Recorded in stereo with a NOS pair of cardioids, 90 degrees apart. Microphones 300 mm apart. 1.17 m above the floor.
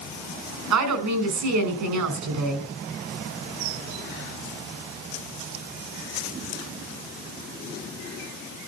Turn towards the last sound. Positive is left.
turn(degrees=-65)